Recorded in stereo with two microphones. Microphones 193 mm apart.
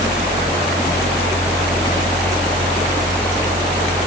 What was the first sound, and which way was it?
Only background noise.